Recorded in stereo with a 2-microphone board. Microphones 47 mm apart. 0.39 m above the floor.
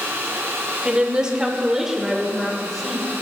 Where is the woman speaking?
20° right (ahead or behind), 1.2 m; by 3.1 s centre (ahead or behind), 1.7 m.